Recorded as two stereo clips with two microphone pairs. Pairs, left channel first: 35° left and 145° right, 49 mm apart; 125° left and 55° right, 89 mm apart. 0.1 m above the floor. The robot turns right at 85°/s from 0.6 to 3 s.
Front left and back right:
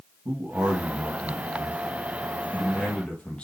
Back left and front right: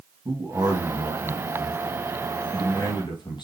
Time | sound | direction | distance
0.2 | a man speaking | 105° right | 3.5 m